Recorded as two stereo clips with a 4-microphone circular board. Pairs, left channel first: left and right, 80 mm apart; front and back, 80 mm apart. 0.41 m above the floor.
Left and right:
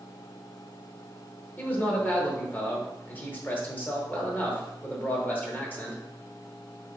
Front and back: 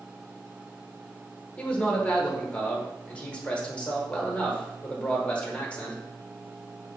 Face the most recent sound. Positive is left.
turn(degrees=55)